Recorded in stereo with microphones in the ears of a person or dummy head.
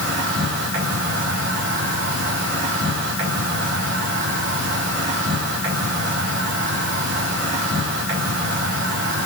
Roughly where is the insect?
Right.